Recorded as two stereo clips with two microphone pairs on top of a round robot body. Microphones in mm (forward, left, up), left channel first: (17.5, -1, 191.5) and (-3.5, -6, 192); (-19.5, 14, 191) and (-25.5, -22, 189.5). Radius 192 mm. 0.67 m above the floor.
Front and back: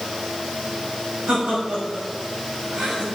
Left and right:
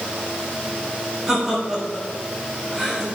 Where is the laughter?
Straight behind, 4.5 m.